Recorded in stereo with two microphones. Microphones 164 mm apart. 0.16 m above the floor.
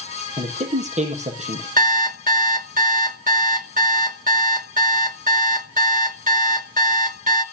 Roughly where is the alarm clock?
Right.